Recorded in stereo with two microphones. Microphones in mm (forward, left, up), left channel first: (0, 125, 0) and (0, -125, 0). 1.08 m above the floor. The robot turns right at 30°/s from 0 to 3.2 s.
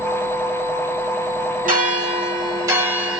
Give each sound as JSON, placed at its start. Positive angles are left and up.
{"t": 1.6, "sound": "a bell", "azimuth_deg": -50, "distance_m": 1.0}